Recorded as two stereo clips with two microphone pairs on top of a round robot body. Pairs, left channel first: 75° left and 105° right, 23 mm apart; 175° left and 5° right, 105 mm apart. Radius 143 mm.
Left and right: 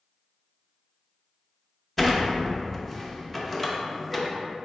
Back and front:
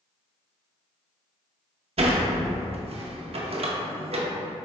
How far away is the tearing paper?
No tearing paper in this recording.